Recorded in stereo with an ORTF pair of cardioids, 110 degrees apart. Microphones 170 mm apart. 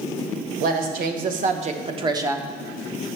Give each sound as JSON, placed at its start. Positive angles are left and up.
{"t": 0.6, "sound": "a woman speaking", "azimuth_deg": -70, "distance_m": 1.3}